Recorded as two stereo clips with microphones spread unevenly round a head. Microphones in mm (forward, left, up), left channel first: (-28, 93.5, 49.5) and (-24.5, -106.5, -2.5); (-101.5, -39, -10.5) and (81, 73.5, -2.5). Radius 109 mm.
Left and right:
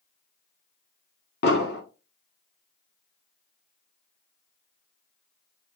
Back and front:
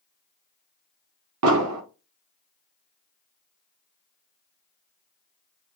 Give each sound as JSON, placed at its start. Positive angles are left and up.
{"t": 1.4, "sound": "an explosion", "azimuth_deg": 45, "distance_m": 0.9}